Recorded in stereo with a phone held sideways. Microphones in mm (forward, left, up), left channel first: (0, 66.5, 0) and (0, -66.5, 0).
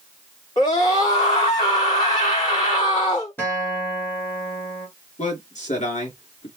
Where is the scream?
35° left (ahead or behind), 2 m.